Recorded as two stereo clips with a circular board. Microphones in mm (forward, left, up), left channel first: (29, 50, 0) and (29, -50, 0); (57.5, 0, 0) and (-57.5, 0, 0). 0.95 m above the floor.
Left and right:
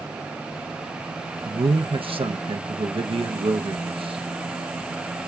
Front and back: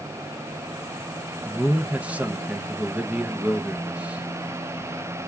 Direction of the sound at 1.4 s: 100° right.